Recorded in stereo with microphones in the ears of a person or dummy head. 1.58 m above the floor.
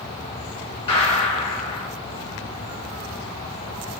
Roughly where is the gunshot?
Left.